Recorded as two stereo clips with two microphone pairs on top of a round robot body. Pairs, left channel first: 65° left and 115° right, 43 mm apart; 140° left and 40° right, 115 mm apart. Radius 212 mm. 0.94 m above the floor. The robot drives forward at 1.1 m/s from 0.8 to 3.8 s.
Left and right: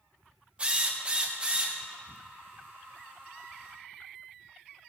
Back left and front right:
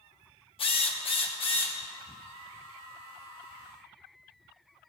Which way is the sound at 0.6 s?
175° right.